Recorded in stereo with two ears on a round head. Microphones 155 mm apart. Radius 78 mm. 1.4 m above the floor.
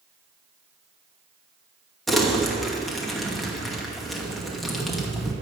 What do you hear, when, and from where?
2.1 s crumpling: centre (ahead or behind), 2 m